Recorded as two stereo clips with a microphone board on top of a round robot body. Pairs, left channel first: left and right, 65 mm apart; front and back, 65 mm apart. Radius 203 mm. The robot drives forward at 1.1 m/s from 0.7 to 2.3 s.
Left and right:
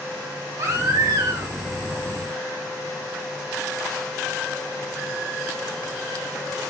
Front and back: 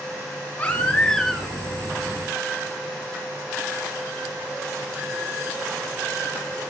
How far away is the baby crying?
About 2 m.